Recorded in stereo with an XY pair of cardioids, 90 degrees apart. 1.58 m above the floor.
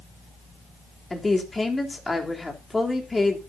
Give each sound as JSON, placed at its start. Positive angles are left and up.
{"t": 1.1, "sound": "a woman speaking", "azimuth_deg": 20, "distance_m": 3.5}